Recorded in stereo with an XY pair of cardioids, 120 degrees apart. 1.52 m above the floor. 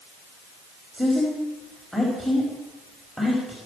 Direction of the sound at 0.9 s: 5° left.